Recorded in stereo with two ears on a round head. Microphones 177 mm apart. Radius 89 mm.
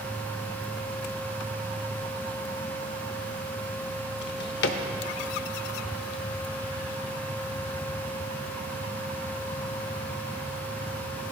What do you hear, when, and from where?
4.2 s a drawer: 55° left (ahead or behind), 0.7 m